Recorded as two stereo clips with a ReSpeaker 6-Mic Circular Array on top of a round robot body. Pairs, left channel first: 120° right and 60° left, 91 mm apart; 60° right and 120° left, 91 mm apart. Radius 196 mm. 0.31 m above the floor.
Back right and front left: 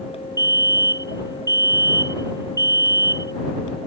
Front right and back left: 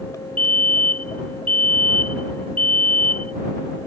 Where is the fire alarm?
10° left.